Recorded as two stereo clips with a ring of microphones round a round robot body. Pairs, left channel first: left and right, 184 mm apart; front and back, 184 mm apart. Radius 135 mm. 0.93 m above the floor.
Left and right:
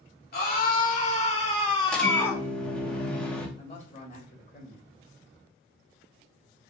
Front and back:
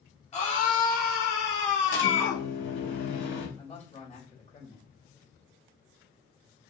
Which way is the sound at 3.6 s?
45° left.